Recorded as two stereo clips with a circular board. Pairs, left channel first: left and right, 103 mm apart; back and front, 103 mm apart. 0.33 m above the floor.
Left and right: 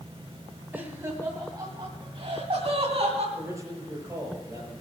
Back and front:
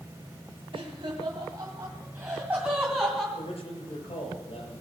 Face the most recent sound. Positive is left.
turn(degrees=-155)